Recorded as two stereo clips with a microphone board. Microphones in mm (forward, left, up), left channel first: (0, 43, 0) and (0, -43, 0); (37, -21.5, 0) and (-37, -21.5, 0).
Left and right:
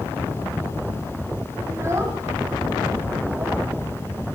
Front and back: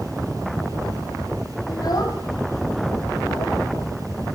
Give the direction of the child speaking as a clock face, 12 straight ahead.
1 o'clock.